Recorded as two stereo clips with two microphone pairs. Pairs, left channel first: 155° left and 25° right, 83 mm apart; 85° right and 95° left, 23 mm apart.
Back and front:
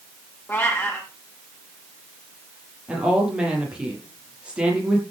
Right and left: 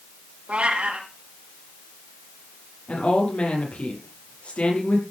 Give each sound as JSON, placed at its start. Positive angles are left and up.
{"t": 0.5, "sound": "a cat meowing", "azimuth_deg": 90, "distance_m": 4.5}
{"t": 2.9, "sound": "a woman speaking", "azimuth_deg": -100, "distance_m": 9.0}